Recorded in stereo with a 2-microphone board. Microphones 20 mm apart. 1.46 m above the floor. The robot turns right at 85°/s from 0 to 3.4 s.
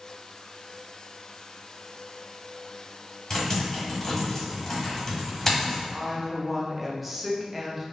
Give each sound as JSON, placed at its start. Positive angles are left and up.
{"t": 3.3, "sound": "typing on a keyboard", "side_deg": 15, "distance_m": 1.3}
{"t": 5.9, "sound": "a woman speaking", "side_deg": -5, "distance_m": 0.6}